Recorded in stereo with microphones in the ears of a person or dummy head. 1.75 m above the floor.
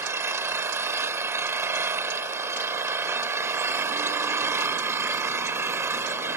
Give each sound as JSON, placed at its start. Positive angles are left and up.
{"t": 0.0, "sound": "an engine running", "side_deg": -15}